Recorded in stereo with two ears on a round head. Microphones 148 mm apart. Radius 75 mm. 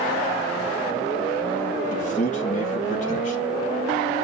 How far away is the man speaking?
About 2 m.